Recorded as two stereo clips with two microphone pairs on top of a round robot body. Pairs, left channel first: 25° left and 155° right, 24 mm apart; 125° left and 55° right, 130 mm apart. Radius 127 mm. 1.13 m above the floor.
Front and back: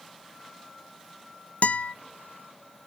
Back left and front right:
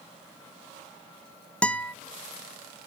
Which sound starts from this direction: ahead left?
A guitar, at 1.6 s.